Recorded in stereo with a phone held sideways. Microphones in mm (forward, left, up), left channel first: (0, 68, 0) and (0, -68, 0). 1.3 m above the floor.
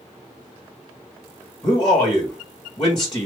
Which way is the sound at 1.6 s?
35° left (ahead or behind).